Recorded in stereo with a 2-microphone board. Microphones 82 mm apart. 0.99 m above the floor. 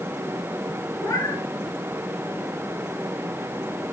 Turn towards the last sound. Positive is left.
turn(degrees=45)  # may be behind; listen again after turning